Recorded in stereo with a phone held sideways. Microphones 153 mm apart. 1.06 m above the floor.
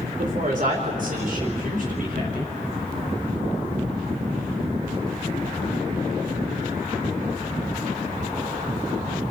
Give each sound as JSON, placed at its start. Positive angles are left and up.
{"t": 0.2, "sound": "a woman speaking", "side_deg": -60, "distance_m": 4.0}